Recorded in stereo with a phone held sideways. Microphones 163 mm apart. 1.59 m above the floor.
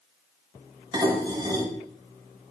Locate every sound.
0.9 s dishes clattering: 25° right (ahead or behind), 5.5 m